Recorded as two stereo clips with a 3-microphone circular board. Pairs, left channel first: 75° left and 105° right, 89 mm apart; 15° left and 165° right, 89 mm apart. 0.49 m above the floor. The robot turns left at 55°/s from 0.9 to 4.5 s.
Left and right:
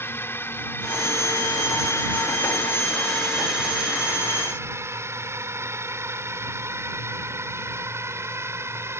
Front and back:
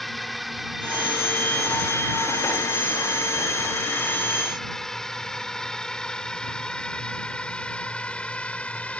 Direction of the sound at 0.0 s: 105° left.